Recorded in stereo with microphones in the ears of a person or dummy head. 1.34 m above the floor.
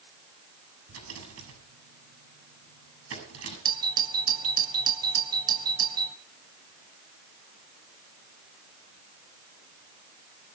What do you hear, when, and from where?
0.9 s a rattle: 85° right, 6.5 m
3.6 s a doorbell: 25° right (ahead or behind), 1.3 m